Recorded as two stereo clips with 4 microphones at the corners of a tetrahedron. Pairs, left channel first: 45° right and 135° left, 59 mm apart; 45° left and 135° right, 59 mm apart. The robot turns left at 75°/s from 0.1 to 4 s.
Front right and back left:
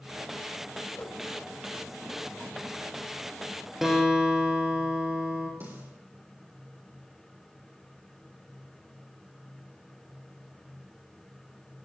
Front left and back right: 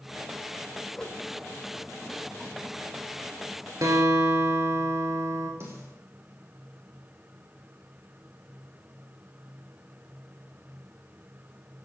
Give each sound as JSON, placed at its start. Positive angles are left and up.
{"t": 0.9, "sound": "a whoosh", "azimuth_deg": -20, "distance_m": 1.7}
{"t": 3.8, "sound": "a guitar", "azimuth_deg": -140, "distance_m": 2.5}
{"t": 5.6, "sound": "a snare drum", "azimuth_deg": -175, "distance_m": 6.5}